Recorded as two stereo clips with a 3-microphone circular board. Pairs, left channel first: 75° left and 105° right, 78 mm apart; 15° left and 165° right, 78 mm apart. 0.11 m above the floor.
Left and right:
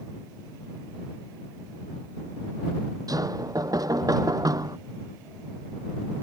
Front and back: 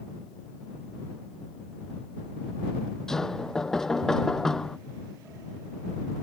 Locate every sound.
3.1 s knocking: 70° right